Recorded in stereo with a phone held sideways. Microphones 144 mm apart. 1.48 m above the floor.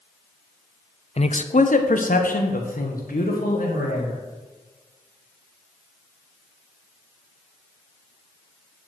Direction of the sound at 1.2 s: 45° left (ahead or behind).